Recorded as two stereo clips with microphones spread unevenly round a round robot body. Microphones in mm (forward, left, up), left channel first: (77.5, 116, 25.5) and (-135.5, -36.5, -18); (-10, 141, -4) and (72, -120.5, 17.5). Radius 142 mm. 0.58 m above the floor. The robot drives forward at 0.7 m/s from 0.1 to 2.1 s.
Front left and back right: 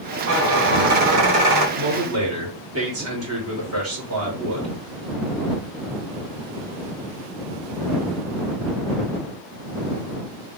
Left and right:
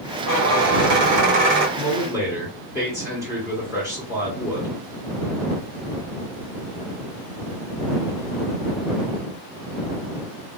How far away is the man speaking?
About 1.9 m.